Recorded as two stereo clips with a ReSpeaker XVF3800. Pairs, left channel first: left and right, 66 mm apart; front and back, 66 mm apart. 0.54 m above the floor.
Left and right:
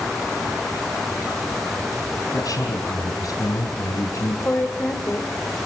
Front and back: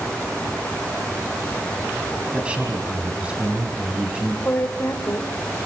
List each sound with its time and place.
2.3 s a man speaking: 110° left, 3.5 m
4.5 s a woman speaking: 40° left, 2 m